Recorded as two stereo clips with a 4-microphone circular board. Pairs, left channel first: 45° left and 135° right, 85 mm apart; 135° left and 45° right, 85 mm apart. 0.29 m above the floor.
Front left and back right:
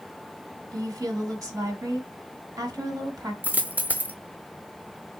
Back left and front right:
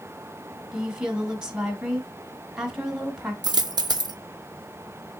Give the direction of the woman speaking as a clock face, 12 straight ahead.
4 o'clock.